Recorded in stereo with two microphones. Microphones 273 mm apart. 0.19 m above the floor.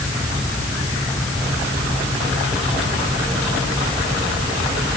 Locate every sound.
Only background noise.